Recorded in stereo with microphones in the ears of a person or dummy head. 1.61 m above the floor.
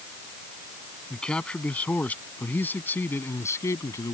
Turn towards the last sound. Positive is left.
turn(degrees=20)  # may be behind; listen again after turning